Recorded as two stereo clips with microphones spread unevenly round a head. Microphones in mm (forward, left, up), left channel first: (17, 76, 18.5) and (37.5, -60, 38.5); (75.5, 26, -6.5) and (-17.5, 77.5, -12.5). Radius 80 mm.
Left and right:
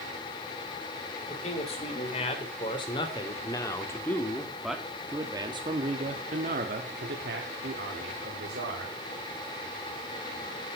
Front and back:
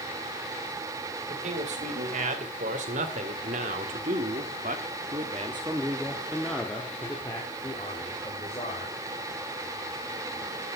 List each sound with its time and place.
1.3 s a man speaking: 145° left, 3.5 m; by 8.9 s 85° right, 3 m